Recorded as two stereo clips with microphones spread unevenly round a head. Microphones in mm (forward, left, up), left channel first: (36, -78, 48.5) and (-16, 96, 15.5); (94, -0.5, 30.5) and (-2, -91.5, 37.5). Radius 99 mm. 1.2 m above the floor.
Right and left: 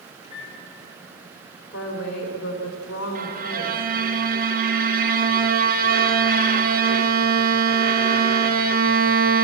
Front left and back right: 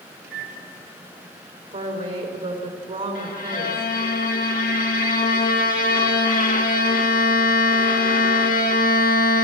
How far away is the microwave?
About 3 m.